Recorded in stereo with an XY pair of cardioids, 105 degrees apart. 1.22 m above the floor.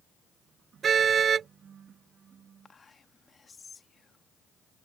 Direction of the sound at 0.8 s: 45° right.